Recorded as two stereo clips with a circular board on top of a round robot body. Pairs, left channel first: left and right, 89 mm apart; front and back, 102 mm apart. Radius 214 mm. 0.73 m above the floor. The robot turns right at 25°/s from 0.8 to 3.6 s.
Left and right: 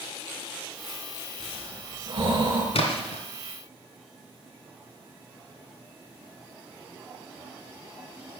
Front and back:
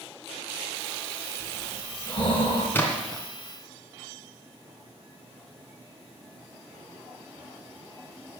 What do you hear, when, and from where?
1.4 s breathing: 70° right, 5 m; by 2.6 s 35° right, 5 m
2.7 s a splash: 75° left, 2.0 m; by 3.2 s 85° left, 2.0 m